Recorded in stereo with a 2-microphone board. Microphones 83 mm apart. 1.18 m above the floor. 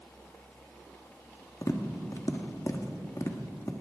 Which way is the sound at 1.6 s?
40° left (ahead or behind).